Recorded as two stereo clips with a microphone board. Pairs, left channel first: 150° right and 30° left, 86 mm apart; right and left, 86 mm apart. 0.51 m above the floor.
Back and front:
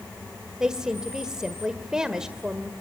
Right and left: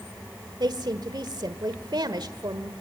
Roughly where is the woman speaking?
Left.